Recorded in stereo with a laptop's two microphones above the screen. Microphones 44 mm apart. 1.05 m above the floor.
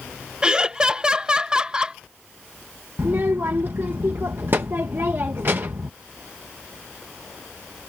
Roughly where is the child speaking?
Right.